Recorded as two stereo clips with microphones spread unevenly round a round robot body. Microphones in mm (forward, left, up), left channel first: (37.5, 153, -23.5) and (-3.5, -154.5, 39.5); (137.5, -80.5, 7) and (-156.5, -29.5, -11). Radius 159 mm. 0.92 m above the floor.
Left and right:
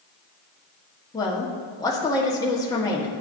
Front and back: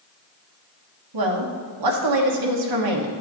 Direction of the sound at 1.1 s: 160° left.